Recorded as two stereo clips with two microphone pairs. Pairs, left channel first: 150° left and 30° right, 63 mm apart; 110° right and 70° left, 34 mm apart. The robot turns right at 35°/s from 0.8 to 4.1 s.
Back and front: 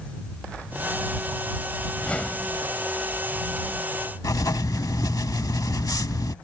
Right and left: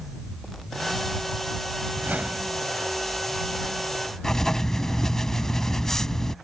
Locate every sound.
1.9 s a whoosh: 80° left; by 2.6 s 100° left
4.2 s writing: 170° left